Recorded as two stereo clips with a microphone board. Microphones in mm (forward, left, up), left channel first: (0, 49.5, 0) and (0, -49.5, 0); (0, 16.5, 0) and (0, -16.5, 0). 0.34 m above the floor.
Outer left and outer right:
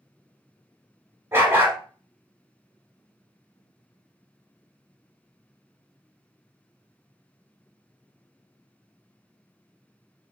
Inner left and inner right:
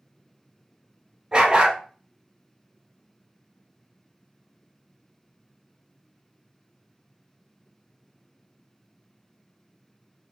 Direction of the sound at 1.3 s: 25° right (ahead or behind).